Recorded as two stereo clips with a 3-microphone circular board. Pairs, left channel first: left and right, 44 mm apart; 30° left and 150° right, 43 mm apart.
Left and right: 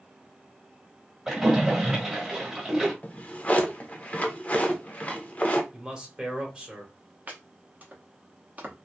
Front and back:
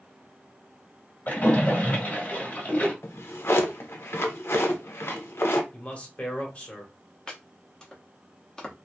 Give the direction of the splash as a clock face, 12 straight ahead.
1 o'clock.